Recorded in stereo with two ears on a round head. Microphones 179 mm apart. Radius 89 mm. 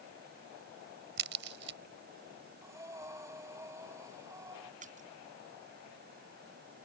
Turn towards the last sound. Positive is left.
turn(degrees=-40)  # may be behind; listen again after turning